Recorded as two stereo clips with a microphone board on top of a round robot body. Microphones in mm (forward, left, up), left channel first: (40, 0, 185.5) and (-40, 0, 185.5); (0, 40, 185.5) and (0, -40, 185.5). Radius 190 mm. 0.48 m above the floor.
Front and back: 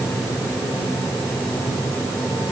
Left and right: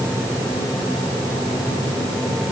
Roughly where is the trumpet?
No trumpet in this recording.